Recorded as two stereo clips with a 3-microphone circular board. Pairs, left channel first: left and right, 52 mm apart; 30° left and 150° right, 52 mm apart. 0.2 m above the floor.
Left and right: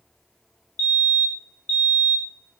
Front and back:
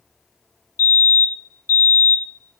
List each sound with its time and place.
0.8 s a fire alarm: 25° left, 7.5 m